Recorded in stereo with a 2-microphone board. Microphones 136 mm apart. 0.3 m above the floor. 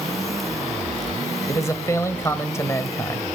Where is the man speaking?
20° left (ahead or behind), 1.0 m.